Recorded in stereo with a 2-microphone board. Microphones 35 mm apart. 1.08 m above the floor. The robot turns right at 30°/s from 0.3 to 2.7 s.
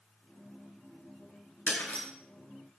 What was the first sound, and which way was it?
Breaking glass, 60° left (ahead or behind).